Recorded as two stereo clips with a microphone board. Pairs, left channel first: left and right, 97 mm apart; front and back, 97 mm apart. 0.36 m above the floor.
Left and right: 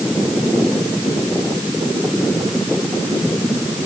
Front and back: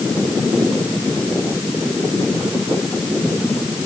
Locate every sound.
Only background noise.